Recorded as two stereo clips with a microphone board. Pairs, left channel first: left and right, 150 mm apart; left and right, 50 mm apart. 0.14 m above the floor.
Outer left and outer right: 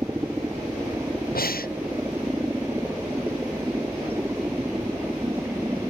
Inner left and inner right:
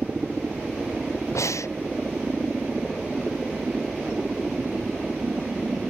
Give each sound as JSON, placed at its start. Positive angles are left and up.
{"t": 0.0, "sound": "a helicopter", "side_deg": -15}
{"t": 1.4, "sound": "breathing", "side_deg": 80}